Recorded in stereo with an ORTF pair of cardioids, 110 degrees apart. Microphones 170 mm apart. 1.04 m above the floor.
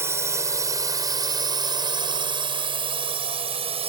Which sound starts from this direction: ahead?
A drone, at 0.0 s.